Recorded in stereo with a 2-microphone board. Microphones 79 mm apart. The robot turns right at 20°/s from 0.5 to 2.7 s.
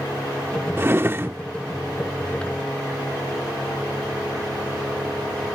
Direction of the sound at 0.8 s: 30° right (ahead or behind).